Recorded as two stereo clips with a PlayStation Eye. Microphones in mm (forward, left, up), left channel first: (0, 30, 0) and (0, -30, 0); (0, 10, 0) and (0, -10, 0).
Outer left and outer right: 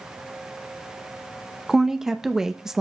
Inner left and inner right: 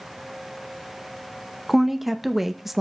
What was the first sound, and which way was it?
A woman speaking, 10° right (ahead or behind).